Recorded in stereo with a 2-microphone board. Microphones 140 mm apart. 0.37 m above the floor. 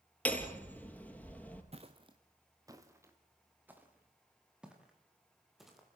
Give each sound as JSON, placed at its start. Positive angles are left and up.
{"t": 0.2, "sound": "hammering", "side_deg": 10, "distance_m": 3.0}
{"t": 1.7, "sound": "footsteps", "side_deg": -45, "distance_m": 2.0}